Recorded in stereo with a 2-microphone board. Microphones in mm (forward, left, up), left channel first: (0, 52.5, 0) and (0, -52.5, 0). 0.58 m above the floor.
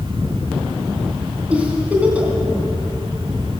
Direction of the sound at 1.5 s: 15° right (ahead or behind).